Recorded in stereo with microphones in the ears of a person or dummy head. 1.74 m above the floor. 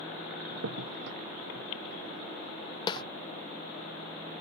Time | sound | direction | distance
0.5 | a crack | 65° right (ahead or behind) | ?
2.9 | a snare drum | 30° left (ahead or behind) | ?